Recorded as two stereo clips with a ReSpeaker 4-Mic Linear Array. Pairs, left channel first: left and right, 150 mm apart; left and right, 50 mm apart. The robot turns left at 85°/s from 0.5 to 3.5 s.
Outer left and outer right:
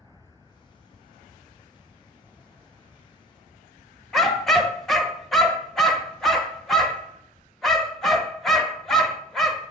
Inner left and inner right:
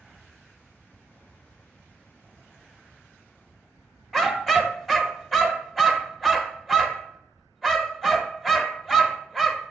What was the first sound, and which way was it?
A dog barking, centre (ahead or behind).